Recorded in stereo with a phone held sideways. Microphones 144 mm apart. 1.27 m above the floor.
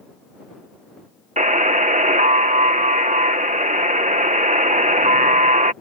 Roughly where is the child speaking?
No child speaking in this recording.